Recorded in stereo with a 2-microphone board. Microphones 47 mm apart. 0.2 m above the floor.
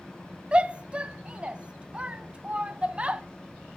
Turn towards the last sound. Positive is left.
turn(degrees=-25)  # may be behind; listen again after turning